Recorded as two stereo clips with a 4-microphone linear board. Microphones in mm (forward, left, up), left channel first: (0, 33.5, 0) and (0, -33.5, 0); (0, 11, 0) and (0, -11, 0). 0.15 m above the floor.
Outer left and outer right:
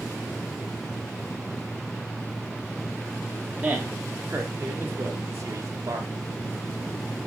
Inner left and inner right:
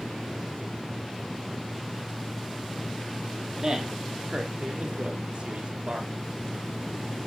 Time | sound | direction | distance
3.6 | a man speaking | 20° right (ahead or behind) | 3.5 m